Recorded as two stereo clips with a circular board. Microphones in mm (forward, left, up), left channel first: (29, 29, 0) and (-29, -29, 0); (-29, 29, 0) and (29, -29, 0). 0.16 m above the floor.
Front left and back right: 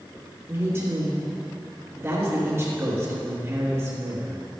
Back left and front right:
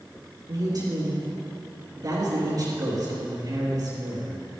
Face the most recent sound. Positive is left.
turn(degrees=-75)